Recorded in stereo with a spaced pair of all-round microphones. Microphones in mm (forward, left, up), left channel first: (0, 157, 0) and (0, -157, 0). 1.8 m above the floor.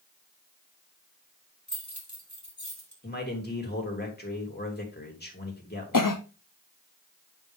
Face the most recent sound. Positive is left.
turn(degrees=75)  # may be behind; listen again after turning